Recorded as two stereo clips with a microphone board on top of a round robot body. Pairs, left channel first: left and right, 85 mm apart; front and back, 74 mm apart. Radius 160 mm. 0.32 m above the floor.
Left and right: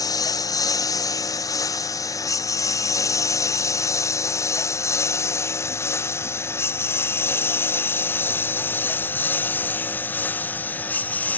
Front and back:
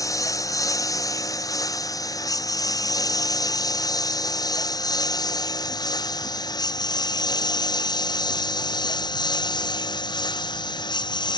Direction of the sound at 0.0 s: 45° left.